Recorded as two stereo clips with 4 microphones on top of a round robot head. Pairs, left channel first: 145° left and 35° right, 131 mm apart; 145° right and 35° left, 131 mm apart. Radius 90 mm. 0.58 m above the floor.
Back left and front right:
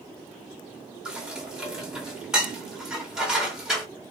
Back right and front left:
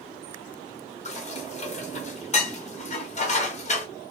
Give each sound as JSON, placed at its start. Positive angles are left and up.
{"t": 1.1, "sound": "dishes clattering", "azimuth_deg": -120, "distance_m": 1.0}